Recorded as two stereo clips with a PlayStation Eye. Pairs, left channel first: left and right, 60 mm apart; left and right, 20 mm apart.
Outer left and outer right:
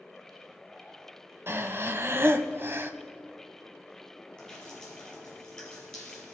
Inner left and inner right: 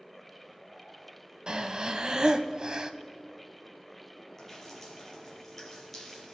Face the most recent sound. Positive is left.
turn(degrees=10)  # may be behind; listen again after turning